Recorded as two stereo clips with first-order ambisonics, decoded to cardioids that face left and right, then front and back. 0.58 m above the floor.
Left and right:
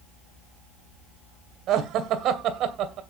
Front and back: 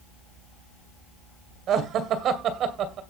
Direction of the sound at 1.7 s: 135° right.